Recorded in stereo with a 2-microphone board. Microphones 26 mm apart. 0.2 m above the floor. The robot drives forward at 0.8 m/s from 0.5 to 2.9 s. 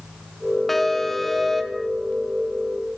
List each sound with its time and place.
0.7 s an alarm: 10° left (ahead or behind), 1.6 m; by 1.9 s 5° left (ahead or behind), 2.5 m